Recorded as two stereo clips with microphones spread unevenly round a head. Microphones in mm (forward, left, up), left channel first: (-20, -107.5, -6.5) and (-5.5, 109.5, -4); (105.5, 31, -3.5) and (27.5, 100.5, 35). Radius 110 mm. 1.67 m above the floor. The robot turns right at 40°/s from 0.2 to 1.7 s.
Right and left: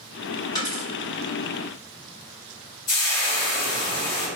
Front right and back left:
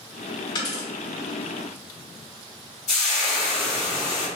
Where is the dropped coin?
55° right, 1.1 m; by 0.9 s 45° right, 1.1 m.